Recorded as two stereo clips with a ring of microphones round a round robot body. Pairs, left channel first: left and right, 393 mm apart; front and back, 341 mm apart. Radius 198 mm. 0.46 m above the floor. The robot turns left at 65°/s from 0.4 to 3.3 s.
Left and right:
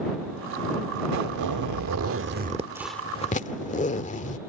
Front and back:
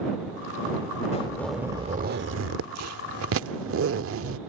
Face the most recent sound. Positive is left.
turn(degrees=155)